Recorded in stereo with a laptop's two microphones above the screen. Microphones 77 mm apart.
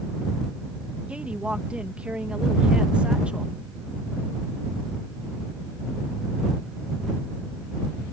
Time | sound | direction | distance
1.1 | a woman speaking | 15° right (ahead or behind) | ?